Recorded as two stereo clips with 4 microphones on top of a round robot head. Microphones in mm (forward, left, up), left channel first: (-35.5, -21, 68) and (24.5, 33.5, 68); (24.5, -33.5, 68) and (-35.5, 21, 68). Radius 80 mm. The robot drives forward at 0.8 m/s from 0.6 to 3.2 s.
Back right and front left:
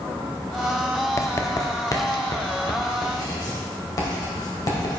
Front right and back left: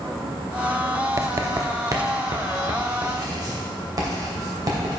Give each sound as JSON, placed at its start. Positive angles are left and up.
{"t": 1.2, "sound": "writing", "azimuth_deg": 180, "distance_m": 1.0}